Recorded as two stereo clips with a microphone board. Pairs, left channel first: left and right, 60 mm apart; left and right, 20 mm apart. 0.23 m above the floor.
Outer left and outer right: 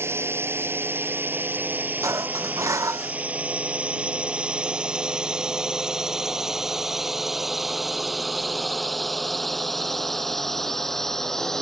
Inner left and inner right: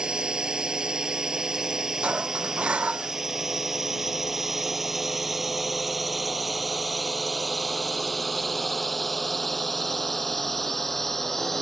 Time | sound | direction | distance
0.0 | a drone | 45° right (ahead or behind) | ?
2.0 | dishes clattering | 60° right (ahead or behind) | ?